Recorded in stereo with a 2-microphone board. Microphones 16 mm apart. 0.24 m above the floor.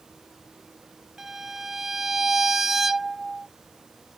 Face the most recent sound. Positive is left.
turn(degrees=-20)  # may be behind; listen again after turning